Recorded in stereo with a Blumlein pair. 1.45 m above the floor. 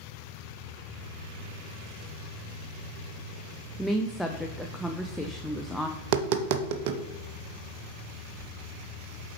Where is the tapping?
45° right, 0.6 m.